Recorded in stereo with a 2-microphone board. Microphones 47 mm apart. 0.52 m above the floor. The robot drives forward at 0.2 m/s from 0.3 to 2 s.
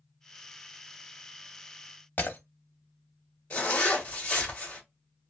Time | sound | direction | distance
2.2 | breaking glass | 45° left (ahead or behind) | 0.6 m
3.5 | a zipper | 30° left (ahead or behind) | 1.4 m